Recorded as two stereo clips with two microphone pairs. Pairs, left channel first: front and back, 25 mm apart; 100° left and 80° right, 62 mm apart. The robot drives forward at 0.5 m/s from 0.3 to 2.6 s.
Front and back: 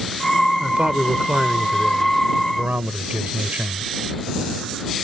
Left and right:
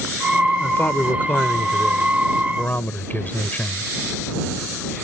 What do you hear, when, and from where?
0.6 s a man speaking: 155° left; by 3.9 s 160° left